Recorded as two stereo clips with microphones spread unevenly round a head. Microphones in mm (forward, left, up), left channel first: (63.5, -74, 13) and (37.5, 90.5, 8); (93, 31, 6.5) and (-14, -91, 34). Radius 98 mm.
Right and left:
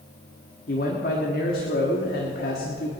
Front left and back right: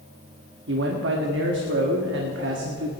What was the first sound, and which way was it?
A man speaking, 130° right.